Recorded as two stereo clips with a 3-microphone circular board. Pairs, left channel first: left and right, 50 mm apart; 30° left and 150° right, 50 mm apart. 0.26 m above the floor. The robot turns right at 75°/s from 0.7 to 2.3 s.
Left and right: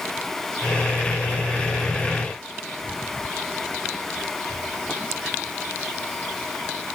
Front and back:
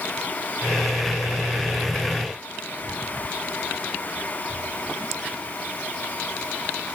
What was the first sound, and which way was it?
Only background noise.